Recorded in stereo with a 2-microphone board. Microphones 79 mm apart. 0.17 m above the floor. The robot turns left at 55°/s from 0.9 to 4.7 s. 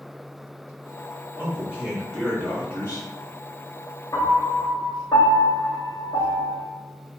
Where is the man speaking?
145° right, 1.8 m; by 3.1 s 125° left, 1.8 m.